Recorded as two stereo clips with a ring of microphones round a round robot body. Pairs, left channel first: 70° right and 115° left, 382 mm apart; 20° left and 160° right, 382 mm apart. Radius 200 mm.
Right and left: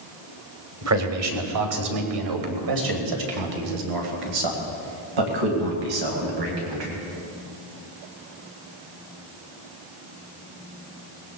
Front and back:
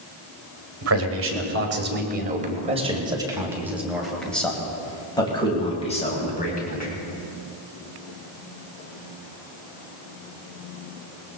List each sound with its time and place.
0.8 s a man speaking: 155° left, 2.5 m; by 7.0 s 90° left, 3.5 m